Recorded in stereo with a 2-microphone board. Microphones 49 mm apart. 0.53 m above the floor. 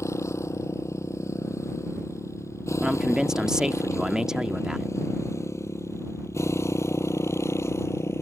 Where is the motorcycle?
85° left; by 8.2 s 70° left (ahead or behind).